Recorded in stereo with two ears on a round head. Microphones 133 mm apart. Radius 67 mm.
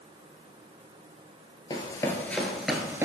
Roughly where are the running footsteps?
Left.